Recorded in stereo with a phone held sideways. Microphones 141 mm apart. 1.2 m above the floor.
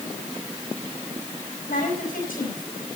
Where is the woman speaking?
85° left, 8 m.